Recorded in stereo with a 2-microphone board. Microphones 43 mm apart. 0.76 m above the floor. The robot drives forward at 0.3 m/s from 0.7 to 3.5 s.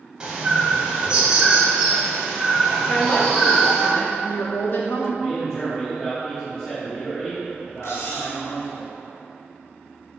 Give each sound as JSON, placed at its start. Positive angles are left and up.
{"t": 0.2, "sound": "a bird", "side_deg": -20, "distance_m": 1.6}
{"t": 2.9, "sound": "a woman speaking", "side_deg": 45, "distance_m": 1.2}
{"t": 5.2, "sound": "a man speaking", "side_deg": 15, "distance_m": 1.6}
{"t": 7.8, "sound": "cutlery clinking", "side_deg": 90, "distance_m": 1.2}